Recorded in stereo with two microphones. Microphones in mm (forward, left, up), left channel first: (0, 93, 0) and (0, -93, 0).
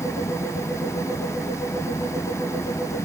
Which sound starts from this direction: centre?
An engine running, at 0.0 s.